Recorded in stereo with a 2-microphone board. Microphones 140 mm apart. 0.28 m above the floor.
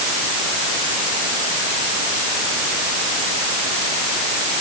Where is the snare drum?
I don't hear a snare drum.